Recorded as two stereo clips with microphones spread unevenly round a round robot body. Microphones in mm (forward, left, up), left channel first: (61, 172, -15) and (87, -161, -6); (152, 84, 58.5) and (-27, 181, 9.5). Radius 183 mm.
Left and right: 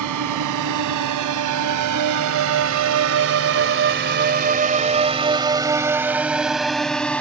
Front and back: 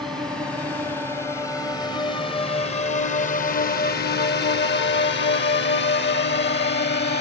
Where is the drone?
125° right; by 7.2 s 10° left.